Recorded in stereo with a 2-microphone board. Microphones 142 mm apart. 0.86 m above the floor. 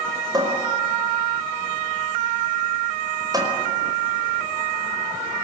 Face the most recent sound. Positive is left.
turn(degrees=-25)  # may be behind; listen again after turning